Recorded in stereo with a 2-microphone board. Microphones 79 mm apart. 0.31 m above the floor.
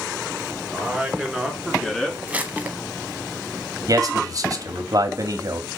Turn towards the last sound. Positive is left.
turn(degrees=-50)  # may be behind; listen again after turning